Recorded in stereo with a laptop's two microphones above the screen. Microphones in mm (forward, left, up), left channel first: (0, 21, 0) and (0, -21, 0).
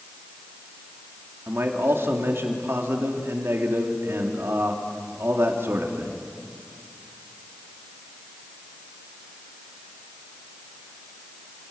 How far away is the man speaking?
About 2.5 m.